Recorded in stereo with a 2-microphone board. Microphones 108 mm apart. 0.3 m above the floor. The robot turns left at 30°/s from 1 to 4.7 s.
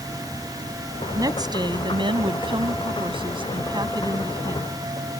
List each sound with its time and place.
1.1 s a woman speaking: 40° right; by 4.7 s 145° right